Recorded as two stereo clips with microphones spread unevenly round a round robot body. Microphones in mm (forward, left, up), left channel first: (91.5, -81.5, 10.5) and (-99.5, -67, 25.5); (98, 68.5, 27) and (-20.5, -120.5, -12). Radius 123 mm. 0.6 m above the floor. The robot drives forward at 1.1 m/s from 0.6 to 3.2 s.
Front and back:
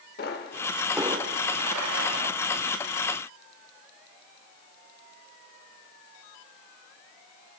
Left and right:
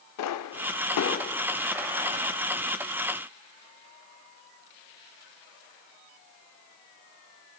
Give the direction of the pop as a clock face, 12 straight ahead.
10 o'clock.